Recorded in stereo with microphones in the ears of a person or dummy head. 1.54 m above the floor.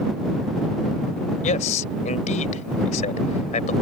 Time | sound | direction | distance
1.4 | a man speaking | 45° left (ahead or behind) | ?